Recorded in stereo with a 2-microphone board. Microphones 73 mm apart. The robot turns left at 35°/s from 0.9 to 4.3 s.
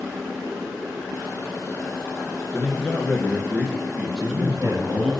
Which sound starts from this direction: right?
A man speaking, at 4.2 s.